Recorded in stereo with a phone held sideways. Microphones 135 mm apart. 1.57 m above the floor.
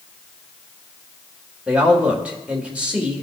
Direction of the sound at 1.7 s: 10° right (ahead or behind).